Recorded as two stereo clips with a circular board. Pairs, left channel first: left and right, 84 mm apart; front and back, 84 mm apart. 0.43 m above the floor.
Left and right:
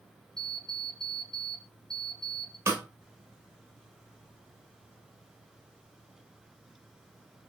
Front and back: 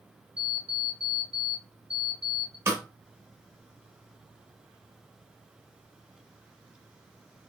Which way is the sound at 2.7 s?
135° right.